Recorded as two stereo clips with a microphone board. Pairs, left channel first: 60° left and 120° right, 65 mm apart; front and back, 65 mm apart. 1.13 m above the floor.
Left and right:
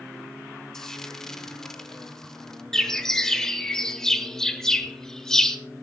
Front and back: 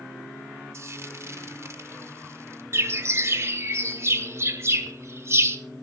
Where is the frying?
140° left, 1.3 m.